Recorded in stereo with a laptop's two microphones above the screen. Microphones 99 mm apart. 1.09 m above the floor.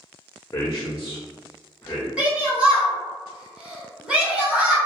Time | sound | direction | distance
0.5 | a man speaking | 30° left (ahead or behind) | 0.5 m
2.2 | a shout | 10° right (ahead or behind) | 1.0 m